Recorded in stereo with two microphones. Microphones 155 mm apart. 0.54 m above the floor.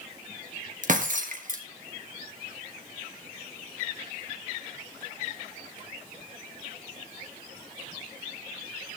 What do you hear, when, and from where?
0.8 s breaking glass: 55° right (ahead or behind), 2.5 m